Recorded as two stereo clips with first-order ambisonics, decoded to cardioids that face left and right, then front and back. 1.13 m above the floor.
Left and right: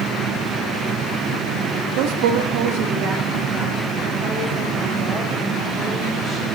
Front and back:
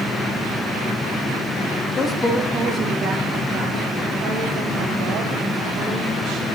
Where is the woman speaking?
65° right, 0.7 m; by 6.5 s 165° right, 3.5 m.